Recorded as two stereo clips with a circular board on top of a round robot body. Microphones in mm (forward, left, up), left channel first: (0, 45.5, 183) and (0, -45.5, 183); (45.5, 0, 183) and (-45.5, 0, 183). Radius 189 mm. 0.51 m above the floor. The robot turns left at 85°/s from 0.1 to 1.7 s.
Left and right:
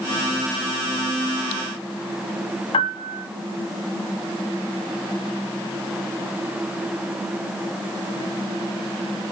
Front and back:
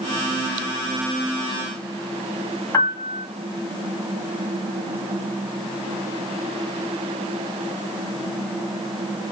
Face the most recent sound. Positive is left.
turn(degrees=65)